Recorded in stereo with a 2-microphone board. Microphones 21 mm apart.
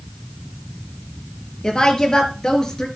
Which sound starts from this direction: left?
A woman speaking, at 1.6 s.